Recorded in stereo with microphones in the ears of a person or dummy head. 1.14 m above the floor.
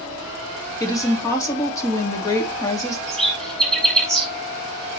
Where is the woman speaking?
20° left (ahead or behind), 1.7 m.